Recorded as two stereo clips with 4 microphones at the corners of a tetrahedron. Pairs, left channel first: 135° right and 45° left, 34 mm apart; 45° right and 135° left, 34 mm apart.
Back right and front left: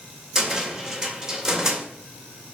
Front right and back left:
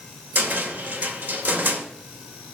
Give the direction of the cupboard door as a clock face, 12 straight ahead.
8 o'clock.